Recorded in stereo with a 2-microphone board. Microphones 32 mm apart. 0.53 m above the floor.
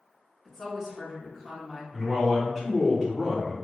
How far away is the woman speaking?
About 0.9 m.